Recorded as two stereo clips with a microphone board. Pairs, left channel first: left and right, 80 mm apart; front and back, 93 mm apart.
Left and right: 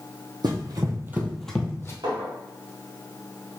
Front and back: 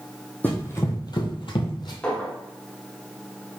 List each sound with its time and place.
0.4 s running footsteps: 70° right, 1.6 m; by 1.9 s 30° left, 1.5 m
2.0 s a clink: 75° right, 1.6 m